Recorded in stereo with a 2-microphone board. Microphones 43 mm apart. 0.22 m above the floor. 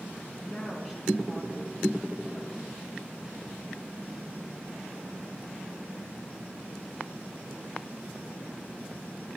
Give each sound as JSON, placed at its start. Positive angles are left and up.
{"t": 0.4, "sound": "a woman speaking", "side_deg": 0, "distance_m": 4.5}